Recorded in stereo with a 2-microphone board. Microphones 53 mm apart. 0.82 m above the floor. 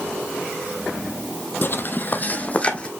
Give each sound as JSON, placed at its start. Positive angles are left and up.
{"t": 1.6, "sound": "footsteps", "side_deg": 40, "distance_m": 1.0}